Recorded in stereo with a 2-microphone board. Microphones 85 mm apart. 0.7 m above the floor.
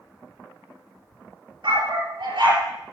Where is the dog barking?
70° right (ahead or behind), 4.5 m.